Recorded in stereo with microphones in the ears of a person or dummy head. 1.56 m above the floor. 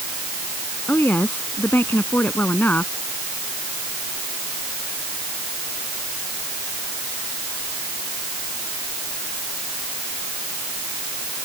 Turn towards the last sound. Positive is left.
turn(degrees=15)  # may be behind; listen again after turning